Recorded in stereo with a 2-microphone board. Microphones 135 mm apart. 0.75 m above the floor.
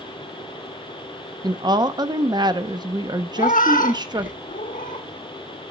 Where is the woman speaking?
30° right (ahead or behind), 0.7 m.